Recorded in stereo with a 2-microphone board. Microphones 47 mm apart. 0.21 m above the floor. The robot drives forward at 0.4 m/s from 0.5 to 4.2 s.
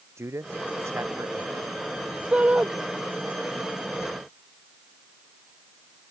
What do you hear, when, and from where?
0.2 s a man speaking: 75° right (ahead or behind)
2.3 s a shout: 25° right (ahead or behind)